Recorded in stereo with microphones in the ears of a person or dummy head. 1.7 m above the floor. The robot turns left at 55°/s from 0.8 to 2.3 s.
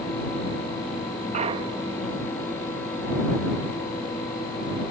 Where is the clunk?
135° right; by 2.0 s 175° right.